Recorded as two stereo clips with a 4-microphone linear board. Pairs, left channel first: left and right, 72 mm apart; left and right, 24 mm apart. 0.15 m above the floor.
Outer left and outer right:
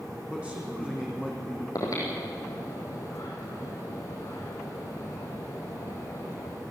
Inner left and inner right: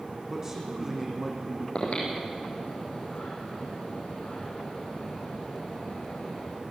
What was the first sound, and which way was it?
A man speaking, 15° right (ahead or behind).